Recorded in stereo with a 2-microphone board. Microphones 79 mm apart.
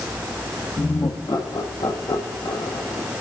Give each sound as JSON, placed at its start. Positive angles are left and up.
{"t": 0.8, "sound": "laughter", "side_deg": 60, "distance_m": 1.8}